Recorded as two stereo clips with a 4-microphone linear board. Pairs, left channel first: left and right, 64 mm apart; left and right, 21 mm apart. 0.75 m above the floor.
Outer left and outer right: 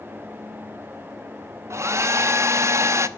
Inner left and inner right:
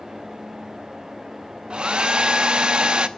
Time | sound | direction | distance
1.7 | a hair dryer | 45° right (ahead or behind) | 0.8 m